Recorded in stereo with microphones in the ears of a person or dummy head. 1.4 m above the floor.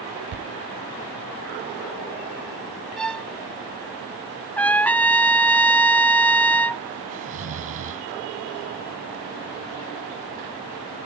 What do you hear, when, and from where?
0.3 s a thud: 75° right (ahead or behind)
3.0 s a violin: centre (ahead or behind)
4.6 s a trumpet: 10° left (ahead or behind)
7.1 s snoring: 45° right (ahead or behind)